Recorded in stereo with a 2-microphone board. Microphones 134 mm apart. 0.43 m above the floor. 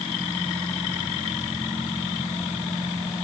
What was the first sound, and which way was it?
Only background noise.